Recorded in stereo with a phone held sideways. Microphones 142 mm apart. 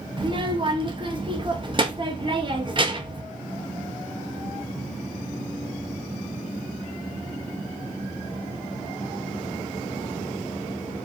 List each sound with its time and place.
0.2 s a child speaking: 35° right (ahead or behind), 0.7 m